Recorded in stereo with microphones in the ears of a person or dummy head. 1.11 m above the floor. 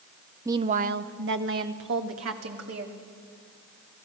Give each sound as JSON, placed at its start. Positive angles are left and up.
{"t": 0.5, "sound": "a woman speaking", "side_deg": -10, "distance_m": 0.6}